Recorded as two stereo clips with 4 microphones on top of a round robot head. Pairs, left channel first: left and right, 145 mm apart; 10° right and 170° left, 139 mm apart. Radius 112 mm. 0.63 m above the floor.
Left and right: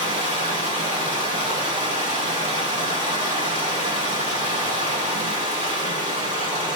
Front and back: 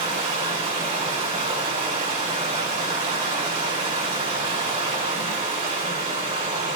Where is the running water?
130° right, 4 m.